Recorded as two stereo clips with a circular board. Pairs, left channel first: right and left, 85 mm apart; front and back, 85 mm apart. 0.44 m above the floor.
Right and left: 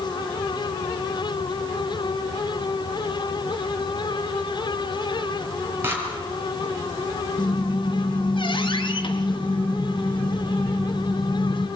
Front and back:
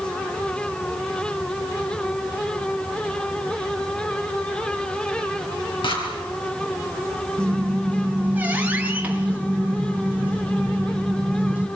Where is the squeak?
110° right, 2.5 m.